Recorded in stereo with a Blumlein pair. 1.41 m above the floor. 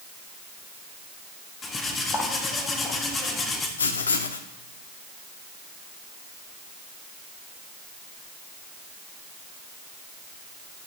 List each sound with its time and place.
1.6 s cutlery clinking: 20° left, 1.5 m
3.8 s writing: 70° left, 1.1 m